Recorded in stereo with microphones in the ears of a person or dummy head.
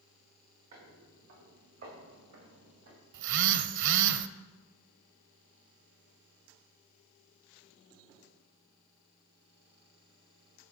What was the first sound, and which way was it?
Footsteps, 40° right (ahead or behind).